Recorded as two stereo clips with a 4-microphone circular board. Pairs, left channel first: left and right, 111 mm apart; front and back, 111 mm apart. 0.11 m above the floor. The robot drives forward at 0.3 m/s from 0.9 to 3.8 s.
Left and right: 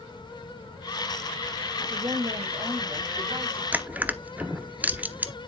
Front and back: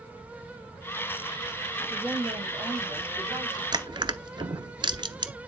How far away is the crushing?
About 0.9 m.